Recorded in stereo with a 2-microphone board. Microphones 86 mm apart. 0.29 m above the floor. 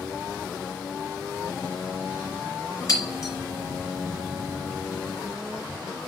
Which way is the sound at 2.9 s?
40° left (ahead or behind).